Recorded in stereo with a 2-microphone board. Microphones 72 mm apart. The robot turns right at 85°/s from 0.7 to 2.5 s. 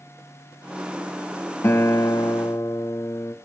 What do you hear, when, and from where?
1.6 s a guitar: 45° left, 1.1 m; by 3.4 s 120° left, 1.1 m